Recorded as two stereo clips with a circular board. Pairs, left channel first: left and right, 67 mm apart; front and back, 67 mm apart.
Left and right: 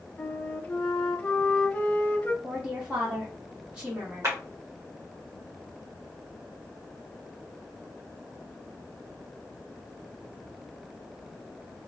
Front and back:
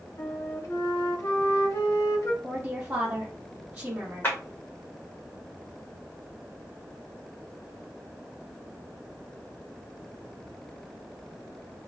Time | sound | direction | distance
0.2 | a flute | 25° left | 0.5 m
2.4 | a woman speaking | 140° right | 0.8 m
4.2 | a clap | 55° right | 1.5 m